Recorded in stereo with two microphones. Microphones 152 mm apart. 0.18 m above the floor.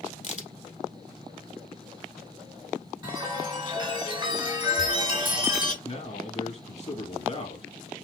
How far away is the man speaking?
About 1.9 m.